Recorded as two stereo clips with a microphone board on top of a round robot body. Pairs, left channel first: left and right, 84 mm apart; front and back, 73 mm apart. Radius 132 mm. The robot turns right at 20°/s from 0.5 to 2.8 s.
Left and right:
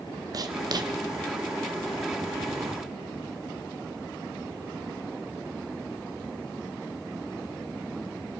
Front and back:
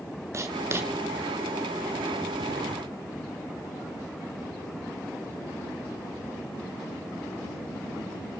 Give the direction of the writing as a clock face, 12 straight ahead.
4 o'clock.